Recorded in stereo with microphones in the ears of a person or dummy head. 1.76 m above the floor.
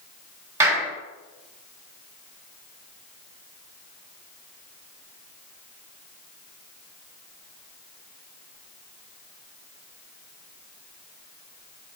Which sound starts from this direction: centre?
A clap, at 0.6 s.